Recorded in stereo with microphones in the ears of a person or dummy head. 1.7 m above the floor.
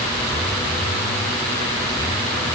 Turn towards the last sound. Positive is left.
No sound to turn to.